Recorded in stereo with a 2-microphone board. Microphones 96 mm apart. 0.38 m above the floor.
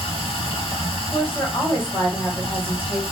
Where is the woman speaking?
20° left (ahead or behind), 1.7 m.